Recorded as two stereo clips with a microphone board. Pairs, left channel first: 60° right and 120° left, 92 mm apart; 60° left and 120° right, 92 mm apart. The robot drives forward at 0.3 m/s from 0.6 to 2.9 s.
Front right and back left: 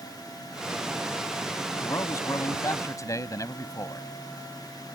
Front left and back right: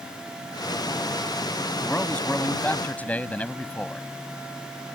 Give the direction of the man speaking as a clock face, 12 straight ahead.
12 o'clock.